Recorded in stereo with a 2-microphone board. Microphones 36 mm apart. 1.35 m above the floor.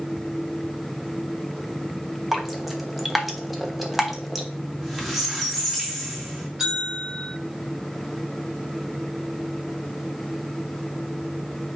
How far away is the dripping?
About 1.0 m.